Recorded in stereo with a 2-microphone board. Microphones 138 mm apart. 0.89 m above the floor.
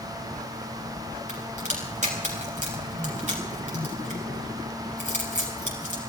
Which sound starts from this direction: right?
A crack, at 1.3 s.